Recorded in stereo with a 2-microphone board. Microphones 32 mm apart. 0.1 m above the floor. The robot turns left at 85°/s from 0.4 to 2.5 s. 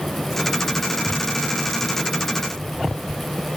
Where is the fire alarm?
No fire alarm in this recording.